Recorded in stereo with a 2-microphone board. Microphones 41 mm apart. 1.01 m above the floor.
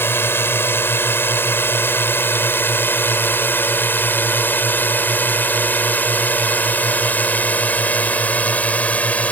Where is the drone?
75° left (ahead or behind); by 9.3 s 40° left (ahead or behind).